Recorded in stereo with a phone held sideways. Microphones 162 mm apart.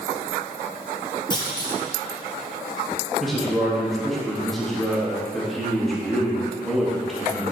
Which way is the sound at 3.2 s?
Centre (ahead or behind).